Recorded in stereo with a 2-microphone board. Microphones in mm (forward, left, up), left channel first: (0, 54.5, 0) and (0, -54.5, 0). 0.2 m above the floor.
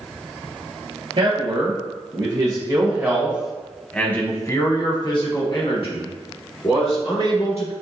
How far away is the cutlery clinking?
I don't hear cutlery clinking.